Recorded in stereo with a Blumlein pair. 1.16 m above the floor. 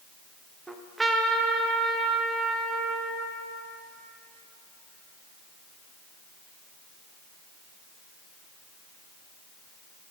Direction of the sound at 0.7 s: 10° right.